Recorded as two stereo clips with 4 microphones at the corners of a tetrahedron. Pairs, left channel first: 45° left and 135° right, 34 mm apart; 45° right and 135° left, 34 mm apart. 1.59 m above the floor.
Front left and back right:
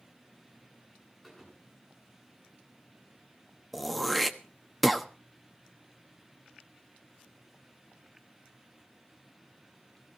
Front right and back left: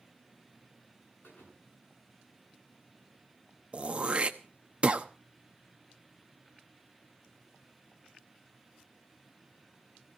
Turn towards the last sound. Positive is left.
turn(degrees=125)